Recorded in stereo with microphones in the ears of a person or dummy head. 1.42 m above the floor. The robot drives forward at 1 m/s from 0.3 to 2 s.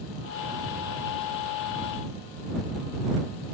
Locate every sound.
Only background noise.